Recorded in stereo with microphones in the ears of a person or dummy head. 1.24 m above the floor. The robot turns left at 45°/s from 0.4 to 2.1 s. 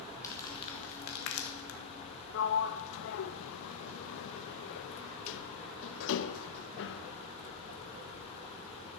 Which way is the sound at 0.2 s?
20° left (ahead or behind).